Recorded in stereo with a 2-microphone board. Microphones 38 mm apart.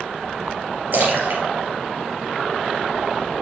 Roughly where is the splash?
Right.